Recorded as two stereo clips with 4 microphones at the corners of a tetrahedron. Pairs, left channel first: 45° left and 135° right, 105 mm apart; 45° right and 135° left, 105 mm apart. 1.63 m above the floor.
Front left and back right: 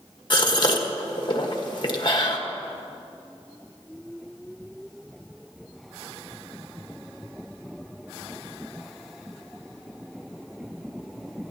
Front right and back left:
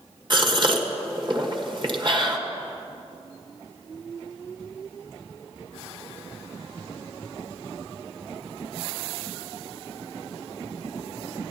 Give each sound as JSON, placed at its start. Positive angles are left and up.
{"t": 0.3, "sound": "a gasp", "azimuth_deg": 90, "distance_m": 1.4}